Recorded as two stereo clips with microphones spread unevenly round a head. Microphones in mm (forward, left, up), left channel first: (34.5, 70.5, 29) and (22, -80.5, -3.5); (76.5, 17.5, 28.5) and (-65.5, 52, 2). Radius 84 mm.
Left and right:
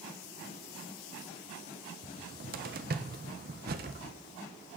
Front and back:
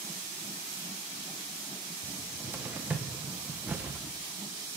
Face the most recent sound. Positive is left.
turn(degrees=-115)